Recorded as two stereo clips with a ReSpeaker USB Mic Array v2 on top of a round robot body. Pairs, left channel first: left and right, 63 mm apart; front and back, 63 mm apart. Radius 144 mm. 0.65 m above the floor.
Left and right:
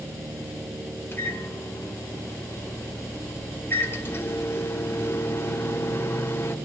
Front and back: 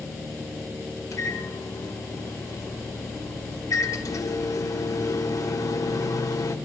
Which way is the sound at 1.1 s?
35° left.